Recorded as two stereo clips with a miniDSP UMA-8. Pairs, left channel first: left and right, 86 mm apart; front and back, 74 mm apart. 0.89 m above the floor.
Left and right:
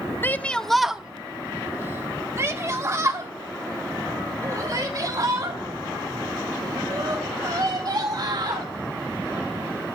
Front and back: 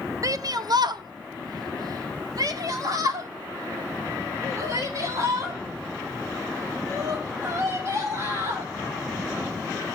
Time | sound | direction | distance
0.2 | a shout | 150° left | 0.6 m